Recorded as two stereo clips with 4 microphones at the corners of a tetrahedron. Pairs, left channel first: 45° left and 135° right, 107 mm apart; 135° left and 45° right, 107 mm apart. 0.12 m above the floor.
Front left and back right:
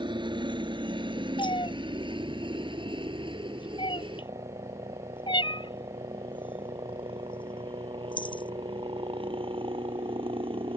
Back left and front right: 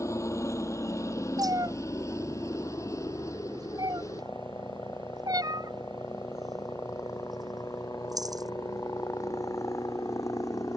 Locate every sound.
0.0 s a helicopter: 165° right
1.4 s a cat meowing: 10° left